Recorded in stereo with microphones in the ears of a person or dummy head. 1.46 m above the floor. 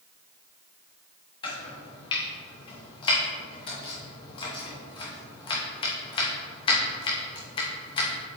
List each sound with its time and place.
1.4 s chopping: 25° left (ahead or behind), 1.0 m